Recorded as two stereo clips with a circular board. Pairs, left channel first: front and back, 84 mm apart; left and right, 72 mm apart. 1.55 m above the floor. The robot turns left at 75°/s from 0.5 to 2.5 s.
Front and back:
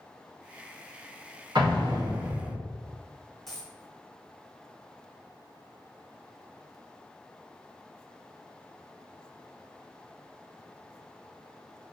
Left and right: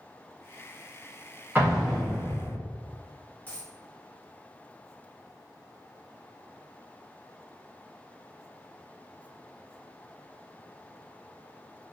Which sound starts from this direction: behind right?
An explosion, at 1.6 s.